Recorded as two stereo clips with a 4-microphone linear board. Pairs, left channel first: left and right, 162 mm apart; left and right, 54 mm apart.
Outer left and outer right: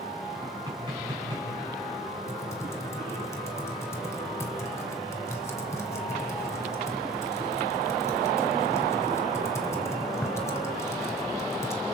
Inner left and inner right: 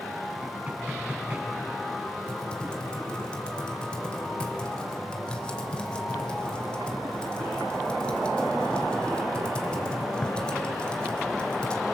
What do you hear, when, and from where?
0.4 s knocking: 30° right (ahead or behind), 8 m
2.3 s typing on a keyboard: 20° left (ahead or behind), 2.5 m